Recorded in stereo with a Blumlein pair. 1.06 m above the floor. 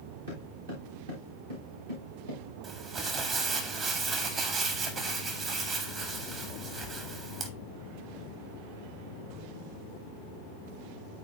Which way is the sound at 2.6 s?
30° right.